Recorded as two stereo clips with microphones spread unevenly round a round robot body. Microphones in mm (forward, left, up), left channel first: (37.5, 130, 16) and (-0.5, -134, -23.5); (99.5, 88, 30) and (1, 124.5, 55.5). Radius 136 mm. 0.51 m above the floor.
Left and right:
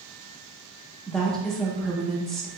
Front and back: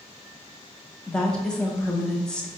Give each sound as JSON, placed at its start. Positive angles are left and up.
{"t": 1.1, "sound": "a woman speaking", "azimuth_deg": -30, "distance_m": 0.7}